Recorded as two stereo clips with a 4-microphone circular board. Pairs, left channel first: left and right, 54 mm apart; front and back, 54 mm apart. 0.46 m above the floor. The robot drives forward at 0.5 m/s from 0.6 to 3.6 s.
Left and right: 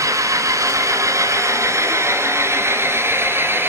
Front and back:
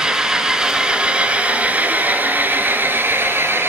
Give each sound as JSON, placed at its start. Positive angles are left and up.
{"t": 0.0, "sound": "an engine running", "azimuth_deg": -100, "distance_m": 2.0}